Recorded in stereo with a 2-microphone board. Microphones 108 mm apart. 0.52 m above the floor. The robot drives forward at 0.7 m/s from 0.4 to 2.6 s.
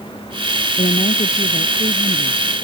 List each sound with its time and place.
0.8 s a woman speaking: 85° left; by 2.4 s 80° left